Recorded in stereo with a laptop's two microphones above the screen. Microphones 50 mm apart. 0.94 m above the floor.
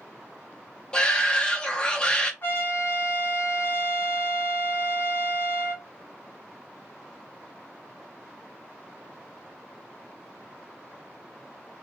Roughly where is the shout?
Left.